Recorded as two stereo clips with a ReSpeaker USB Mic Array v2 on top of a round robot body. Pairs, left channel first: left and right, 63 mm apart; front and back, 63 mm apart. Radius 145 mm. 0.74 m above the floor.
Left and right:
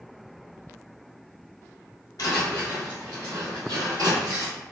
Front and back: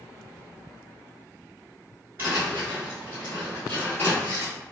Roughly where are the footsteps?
Behind left.